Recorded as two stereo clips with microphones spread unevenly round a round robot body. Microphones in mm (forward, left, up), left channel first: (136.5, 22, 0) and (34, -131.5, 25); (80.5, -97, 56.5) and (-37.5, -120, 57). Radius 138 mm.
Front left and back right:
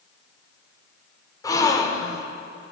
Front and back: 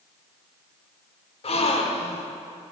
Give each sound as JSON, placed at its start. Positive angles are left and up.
{"t": 1.4, "sound": "a gasp", "azimuth_deg": -15, "distance_m": 1.2}